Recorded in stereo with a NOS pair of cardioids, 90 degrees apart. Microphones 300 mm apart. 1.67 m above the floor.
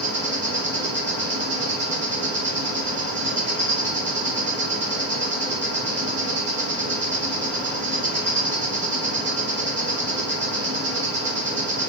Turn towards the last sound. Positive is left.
turn(degrees=-40)